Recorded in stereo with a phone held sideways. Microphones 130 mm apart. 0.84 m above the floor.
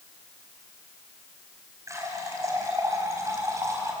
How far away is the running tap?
About 4 m.